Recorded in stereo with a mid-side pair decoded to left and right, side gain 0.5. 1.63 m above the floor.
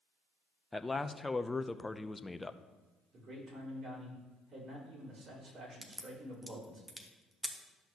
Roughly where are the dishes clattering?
No dishes clattering in this recording.